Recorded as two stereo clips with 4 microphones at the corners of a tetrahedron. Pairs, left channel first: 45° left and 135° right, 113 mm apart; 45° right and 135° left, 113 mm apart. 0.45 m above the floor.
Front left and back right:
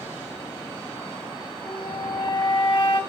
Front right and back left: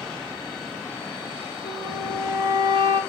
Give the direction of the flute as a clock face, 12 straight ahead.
9 o'clock.